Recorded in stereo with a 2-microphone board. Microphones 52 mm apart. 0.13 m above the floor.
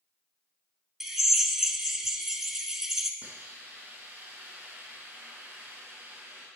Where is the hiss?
25° right (ahead or behind), 3 m.